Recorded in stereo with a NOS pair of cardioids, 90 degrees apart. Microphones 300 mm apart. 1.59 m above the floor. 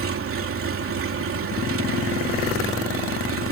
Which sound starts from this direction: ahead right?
An engine running, at 0.0 s.